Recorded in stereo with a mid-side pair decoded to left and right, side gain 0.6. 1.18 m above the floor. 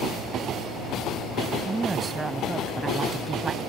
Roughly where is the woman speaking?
Ahead right.